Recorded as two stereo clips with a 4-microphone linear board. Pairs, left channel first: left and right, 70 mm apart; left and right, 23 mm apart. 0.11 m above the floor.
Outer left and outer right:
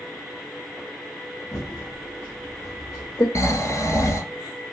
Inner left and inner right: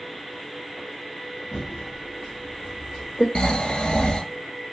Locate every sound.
1.5 s typing on a keyboard: 55° left (ahead or behind), 1.7 m
3.4 s snoring: 45° left (ahead or behind), 0.9 m